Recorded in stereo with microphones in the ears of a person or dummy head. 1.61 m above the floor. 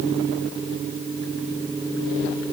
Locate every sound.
Only background noise.